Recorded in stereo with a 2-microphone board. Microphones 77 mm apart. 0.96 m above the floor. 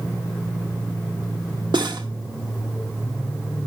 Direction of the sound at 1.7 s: 75° right (ahead or behind).